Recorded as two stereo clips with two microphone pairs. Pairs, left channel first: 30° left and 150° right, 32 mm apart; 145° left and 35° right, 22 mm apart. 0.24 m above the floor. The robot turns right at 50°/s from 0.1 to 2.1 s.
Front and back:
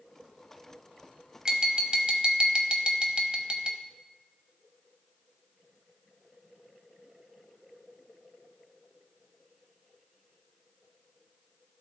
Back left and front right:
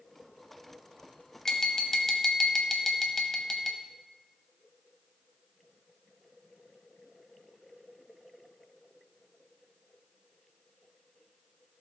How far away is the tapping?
About 0.9 m.